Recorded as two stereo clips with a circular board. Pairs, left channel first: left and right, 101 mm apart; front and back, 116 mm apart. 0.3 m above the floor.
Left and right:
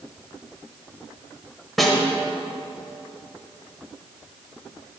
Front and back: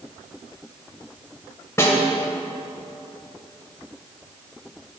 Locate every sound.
1.8 s a snare drum: 5° left, 1.2 m